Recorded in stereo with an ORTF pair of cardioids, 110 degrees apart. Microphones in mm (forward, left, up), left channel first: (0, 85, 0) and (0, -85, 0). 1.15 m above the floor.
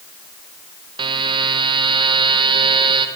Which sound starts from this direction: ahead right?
A buzzer, at 1.0 s.